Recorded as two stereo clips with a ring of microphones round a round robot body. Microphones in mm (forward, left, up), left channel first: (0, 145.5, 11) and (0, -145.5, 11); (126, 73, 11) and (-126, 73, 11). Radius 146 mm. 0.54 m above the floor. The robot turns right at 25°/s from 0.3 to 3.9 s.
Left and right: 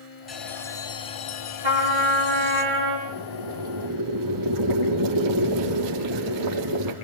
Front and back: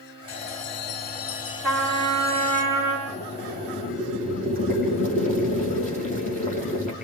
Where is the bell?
Straight ahead, 4.5 m; by 2.6 s 60° left, 4.5 m.